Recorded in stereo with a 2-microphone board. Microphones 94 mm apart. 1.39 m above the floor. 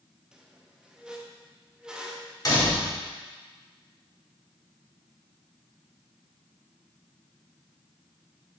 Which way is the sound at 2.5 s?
40° left (ahead or behind).